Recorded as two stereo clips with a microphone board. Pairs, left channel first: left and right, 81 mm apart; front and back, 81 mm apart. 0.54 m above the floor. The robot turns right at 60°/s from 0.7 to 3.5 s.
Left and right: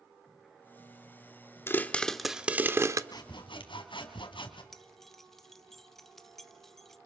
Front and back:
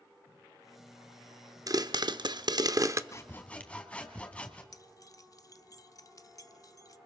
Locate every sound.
1.7 s a pop: 145° left, 0.8 m; by 3.0 s 135° right, 0.8 m
3.1 s sawing: 50° left, 2 m; by 4.6 s 75° left, 2 m
4.7 s keys jangling: 5° left, 0.9 m